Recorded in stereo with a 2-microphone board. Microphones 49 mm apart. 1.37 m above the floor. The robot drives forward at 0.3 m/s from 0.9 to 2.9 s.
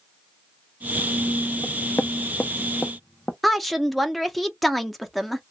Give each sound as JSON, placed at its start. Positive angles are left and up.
{"t": 1.6, "sound": "knocking", "side_deg": 65, "distance_m": 0.6}
{"t": 3.4, "sound": "a woman speaking", "side_deg": 0, "distance_m": 0.8}